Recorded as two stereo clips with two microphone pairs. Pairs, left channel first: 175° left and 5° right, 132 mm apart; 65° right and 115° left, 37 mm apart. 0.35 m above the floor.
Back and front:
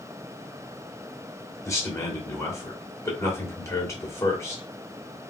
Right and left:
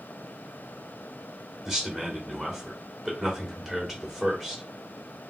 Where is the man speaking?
170° left, 1.2 m.